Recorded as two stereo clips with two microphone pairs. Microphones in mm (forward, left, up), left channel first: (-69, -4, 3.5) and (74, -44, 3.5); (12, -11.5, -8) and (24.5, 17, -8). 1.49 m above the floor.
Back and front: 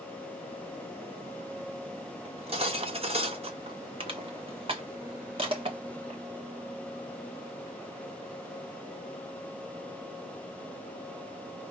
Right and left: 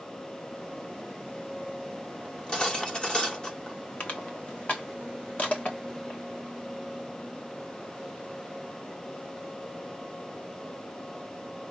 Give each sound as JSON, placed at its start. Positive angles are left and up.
{"t": 2.2, "sound": "cutlery clinking", "azimuth_deg": -55, "distance_m": 1.2}
{"t": 4.0, "sound": "crushing", "azimuth_deg": -70, "distance_m": 1.5}